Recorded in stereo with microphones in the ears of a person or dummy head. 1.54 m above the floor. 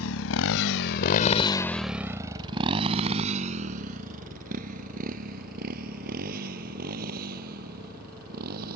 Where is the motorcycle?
75° left (ahead or behind); by 8.8 s 50° right (ahead or behind).